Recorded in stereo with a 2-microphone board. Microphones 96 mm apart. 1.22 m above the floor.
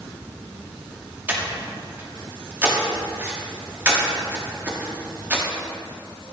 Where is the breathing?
20° right (ahead or behind), 1.0 m.